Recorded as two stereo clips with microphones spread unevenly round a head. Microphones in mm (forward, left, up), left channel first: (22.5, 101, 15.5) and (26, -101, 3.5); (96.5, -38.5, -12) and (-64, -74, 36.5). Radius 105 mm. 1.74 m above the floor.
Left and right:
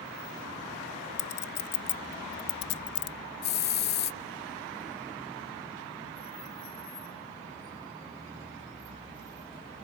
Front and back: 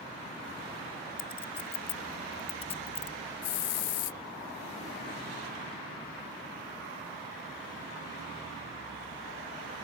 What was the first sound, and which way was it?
A clink, 85° left.